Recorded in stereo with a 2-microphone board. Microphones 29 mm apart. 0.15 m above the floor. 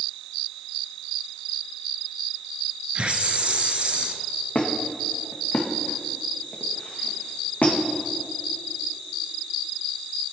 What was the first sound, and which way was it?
A hiss, 40° right (ahead or behind).